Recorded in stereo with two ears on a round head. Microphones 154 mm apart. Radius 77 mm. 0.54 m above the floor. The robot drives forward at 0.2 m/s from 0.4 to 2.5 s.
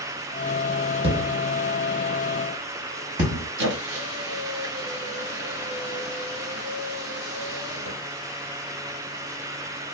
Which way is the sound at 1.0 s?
35° right (ahead or behind).